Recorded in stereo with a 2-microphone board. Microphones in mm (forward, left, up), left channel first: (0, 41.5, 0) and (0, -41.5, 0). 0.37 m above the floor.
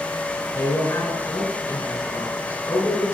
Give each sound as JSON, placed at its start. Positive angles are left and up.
{"t": 0.6, "sound": "a man speaking", "side_deg": 35, "distance_m": 3.5}